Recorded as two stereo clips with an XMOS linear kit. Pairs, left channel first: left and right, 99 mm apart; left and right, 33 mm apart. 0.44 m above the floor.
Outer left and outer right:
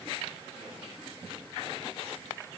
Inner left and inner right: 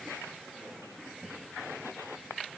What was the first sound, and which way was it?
Only background noise.